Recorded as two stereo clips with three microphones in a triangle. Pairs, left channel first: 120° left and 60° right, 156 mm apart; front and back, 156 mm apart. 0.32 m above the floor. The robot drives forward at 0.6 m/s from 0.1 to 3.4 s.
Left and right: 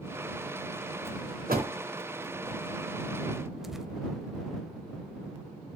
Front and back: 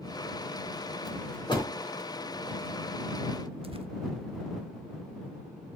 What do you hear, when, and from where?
1.5 s a door slam: 55° right, 3 m; by 1.7 s 60° right, 3 m
3.6 s tearing paper: 145° right, 0.7 m